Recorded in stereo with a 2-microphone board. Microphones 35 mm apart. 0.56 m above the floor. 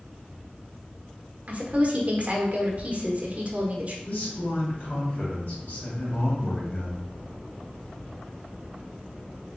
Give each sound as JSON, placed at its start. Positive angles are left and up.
{"t": 1.5, "sound": "a woman speaking", "side_deg": -45, "distance_m": 1.2}
{"t": 4.0, "sound": "a man speaking", "side_deg": 50, "distance_m": 2.0}